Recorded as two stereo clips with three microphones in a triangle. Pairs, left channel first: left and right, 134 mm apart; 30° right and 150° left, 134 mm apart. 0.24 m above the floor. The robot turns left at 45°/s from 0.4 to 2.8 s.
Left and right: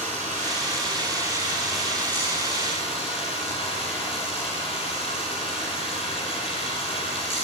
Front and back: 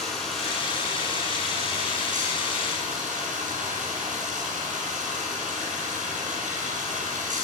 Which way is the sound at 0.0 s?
115° right.